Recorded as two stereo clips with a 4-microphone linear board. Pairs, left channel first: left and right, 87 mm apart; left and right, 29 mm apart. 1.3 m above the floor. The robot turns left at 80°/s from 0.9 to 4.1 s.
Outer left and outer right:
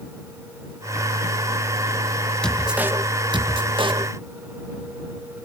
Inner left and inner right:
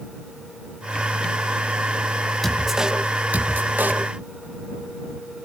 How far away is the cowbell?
I don't hear a cowbell.